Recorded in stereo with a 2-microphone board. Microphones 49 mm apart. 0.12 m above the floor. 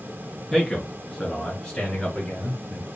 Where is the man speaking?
Centre (ahead or behind), 1.6 m; by 2.9 s 25° left (ahead or behind), 1.4 m.